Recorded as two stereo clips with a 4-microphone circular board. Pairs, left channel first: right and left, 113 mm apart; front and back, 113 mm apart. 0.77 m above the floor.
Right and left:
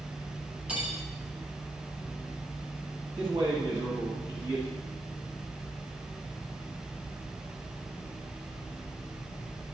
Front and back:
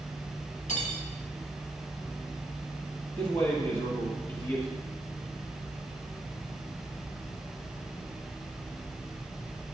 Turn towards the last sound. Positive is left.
turn(degrees=35)